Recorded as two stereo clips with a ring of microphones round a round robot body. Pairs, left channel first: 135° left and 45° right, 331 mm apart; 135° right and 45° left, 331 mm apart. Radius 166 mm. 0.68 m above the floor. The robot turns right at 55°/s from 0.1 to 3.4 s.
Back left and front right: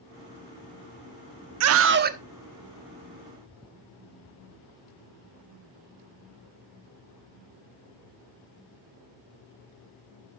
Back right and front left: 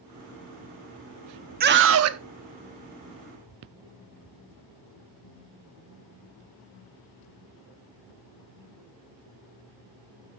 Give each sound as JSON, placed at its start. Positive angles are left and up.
{"t": 1.6, "sound": "a scream", "azimuth_deg": -15, "distance_m": 0.8}